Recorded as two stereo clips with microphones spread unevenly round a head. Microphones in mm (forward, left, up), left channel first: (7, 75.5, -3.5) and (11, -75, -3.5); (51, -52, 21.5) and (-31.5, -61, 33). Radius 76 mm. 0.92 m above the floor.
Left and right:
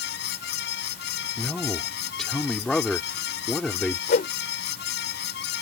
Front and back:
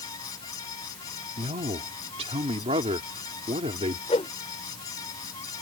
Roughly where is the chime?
No chime in this recording.